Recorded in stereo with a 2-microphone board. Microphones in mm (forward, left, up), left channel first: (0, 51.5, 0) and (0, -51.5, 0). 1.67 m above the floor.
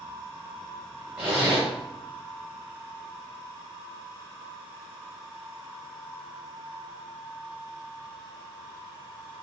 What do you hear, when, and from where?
1.2 s a zipper: 10° right (ahead or behind), 1.6 m